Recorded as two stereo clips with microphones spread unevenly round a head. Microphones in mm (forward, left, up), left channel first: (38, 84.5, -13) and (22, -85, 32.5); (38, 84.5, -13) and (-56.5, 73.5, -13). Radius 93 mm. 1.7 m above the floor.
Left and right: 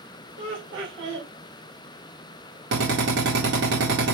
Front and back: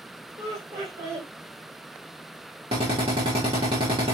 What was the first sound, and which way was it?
Laughter, 115° right.